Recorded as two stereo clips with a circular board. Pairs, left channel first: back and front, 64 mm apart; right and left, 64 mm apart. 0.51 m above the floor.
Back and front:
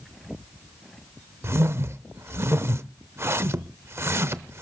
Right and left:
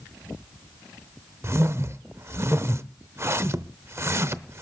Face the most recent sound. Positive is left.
turn(degrees=45)